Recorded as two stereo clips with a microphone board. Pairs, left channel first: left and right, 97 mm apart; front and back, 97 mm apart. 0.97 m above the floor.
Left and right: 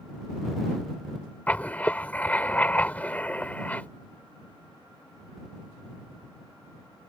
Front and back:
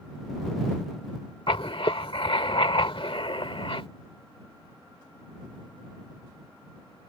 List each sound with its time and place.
1.5 s writing: 15° left